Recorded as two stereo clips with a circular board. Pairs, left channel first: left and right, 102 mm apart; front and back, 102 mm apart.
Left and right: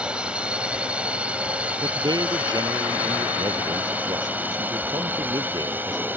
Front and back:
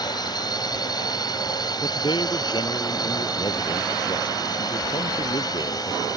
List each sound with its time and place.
0.0 s a drone: 15° right; by 6.2 s 25° right
1.8 s a man speaking: 40° right